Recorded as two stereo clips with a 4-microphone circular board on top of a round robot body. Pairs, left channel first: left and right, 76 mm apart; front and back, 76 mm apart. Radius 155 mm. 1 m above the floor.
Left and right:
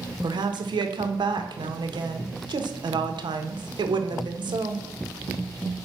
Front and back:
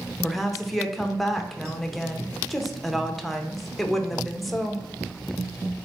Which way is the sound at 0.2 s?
90° right.